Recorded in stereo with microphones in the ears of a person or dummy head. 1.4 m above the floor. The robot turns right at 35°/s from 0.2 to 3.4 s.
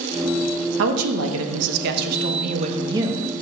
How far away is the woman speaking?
About 0.9 m.